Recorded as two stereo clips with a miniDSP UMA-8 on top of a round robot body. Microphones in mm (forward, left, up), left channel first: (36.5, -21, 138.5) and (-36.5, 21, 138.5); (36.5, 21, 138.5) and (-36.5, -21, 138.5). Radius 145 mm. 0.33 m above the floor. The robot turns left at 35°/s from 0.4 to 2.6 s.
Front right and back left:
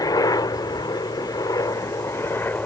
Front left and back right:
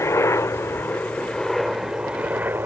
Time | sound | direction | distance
0.0 | a helicopter | 15° right | ?